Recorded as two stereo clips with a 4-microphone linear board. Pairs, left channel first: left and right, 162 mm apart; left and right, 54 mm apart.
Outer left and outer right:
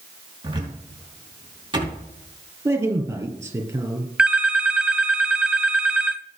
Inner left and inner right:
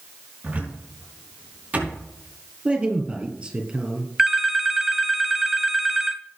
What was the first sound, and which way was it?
A cupboard door, 25° right (ahead or behind).